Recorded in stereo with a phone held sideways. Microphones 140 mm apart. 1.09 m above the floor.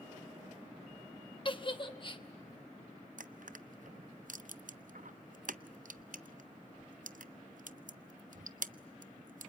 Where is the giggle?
35° left (ahead or behind), 1.1 m.